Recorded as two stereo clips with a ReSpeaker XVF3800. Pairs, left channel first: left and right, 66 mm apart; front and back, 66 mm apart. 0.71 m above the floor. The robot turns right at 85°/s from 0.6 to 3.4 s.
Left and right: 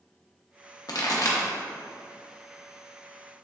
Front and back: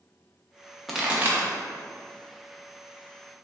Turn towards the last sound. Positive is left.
turn(degrees=-55)